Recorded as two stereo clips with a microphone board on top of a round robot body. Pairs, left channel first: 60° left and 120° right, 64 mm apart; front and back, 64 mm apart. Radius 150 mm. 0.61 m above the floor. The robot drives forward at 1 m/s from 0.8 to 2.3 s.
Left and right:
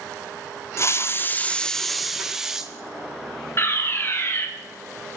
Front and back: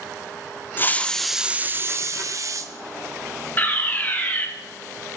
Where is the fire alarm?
45° left, 2.5 m.